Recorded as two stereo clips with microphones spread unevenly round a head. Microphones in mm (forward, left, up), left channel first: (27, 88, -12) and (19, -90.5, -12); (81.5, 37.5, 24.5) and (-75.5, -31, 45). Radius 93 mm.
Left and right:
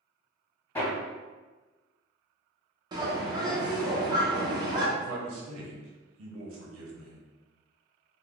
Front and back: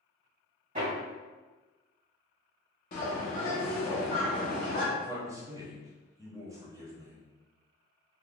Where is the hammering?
165° left, 1.8 m.